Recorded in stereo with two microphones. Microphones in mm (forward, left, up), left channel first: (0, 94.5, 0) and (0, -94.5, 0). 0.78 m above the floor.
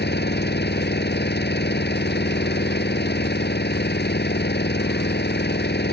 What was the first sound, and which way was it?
An engine running, 65° left (ahead or behind).